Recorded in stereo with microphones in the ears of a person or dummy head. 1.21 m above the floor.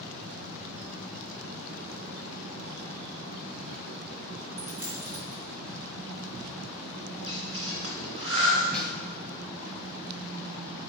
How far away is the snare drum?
About 0.7 m.